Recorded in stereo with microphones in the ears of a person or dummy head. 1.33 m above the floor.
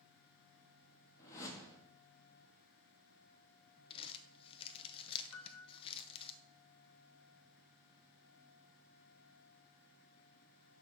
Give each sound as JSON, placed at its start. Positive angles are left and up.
{"t": 1.2, "sound": "a whoosh", "side_deg": 20, "distance_m": 1.3}
{"t": 3.9, "sound": "crumpling", "side_deg": 30, "distance_m": 0.6}
{"t": 5.3, "sound": "a piano", "side_deg": 85, "distance_m": 0.9}